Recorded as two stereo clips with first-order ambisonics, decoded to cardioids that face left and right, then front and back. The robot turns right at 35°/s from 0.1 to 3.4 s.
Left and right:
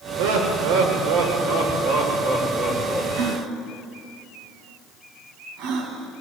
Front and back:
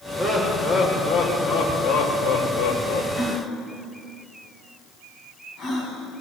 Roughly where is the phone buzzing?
I don't hear a phone buzzing.